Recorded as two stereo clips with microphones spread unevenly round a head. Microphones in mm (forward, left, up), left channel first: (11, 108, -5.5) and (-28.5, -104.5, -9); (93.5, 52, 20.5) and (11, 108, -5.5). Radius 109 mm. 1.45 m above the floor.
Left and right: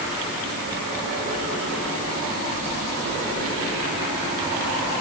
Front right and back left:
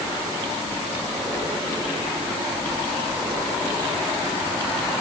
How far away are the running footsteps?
No running footsteps in this recording.